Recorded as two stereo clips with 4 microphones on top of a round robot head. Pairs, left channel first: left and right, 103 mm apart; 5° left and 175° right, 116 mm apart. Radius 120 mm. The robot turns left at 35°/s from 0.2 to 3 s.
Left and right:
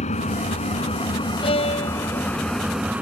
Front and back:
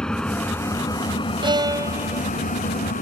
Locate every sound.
0.0 s an engine running: 85° left; by 3.0 s 10° right
1.4 s a violin: 135° left; by 2.3 s 105° left